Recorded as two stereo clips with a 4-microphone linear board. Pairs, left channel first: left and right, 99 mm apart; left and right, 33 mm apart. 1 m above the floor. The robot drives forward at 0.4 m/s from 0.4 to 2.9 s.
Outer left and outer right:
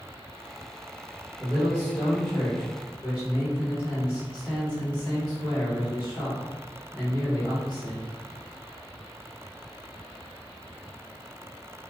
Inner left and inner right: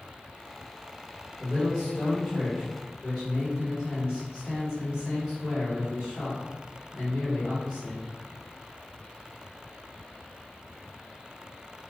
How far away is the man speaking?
About 0.9 m.